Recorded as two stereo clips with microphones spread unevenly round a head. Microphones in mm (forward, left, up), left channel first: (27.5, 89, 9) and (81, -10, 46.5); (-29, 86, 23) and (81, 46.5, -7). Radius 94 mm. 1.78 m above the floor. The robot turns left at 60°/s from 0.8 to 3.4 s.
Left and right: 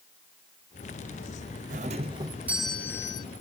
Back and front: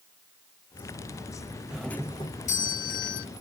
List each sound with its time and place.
1.7 s a doorbell: 100° right; by 3.2 s 165° left